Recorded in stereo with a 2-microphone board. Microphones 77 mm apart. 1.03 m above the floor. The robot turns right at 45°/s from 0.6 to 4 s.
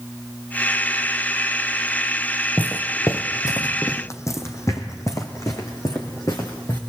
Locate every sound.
2.6 s footsteps: 20° left (ahead or behind), 1.0 m; by 6.8 s 40° left (ahead or behind), 4.5 m